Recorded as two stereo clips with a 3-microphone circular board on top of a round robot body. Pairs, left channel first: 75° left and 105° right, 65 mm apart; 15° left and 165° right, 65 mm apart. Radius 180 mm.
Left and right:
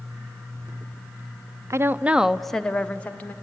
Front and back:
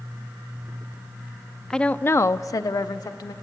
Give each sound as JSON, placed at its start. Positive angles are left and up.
{"t": 1.7, "sound": "a woman speaking", "azimuth_deg": -65, "distance_m": 0.6}